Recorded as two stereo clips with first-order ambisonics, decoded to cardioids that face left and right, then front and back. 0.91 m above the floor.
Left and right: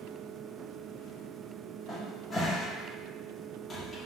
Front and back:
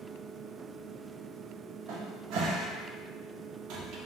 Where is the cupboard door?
160° left, 0.7 m.